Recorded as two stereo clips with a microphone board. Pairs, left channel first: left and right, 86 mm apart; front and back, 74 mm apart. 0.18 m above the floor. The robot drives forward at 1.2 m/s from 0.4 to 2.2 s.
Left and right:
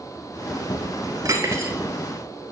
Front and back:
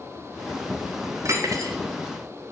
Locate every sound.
1.2 s cutlery clinking: 135° right, 1.3 m; by 2.5 s 160° right, 2 m